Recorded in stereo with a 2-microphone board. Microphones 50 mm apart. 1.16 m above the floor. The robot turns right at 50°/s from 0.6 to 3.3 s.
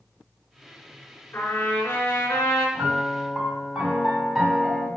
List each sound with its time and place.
1.3 s a trumpet: 45° left, 3.5 m; by 2.6 s 110° left, 3.5 m
2.8 s a piano: 25° right (ahead or behind), 2 m; by 4.9 s 5° left (ahead or behind), 2 m